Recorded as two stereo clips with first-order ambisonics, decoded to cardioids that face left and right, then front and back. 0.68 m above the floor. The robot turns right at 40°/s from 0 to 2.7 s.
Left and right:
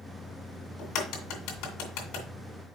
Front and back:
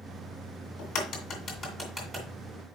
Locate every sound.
0.8 s a crack: 35° left, 2 m; by 2.3 s 95° left, 2 m